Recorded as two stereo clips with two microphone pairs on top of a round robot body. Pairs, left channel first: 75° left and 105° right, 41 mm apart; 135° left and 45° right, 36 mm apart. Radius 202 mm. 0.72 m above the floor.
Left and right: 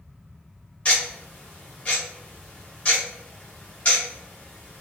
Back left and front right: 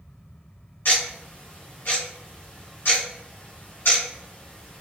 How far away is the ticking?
About 1.3 m.